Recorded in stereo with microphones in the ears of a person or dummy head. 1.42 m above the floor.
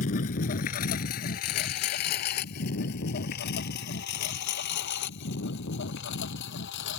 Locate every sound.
0.0 s a lawn mower: 45° left (ahead or behind); by 7.0 s 65° left (ahead or behind)